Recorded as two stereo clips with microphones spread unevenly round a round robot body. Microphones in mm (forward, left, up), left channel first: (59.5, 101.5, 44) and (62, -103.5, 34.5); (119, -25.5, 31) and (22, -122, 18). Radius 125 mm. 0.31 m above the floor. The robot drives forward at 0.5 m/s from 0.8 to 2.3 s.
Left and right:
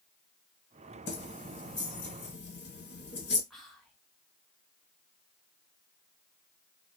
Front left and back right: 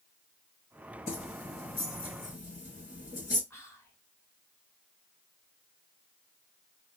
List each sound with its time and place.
1.1 s keys jangling: 75° left, 1.4 m; by 3.4 s 105° left, 1.4 m
3.5 s whispering: 5° right, 1.0 m